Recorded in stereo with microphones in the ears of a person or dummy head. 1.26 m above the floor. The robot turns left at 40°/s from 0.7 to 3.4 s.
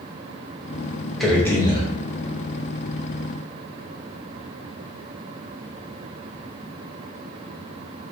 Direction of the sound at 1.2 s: 5° left (ahead or behind).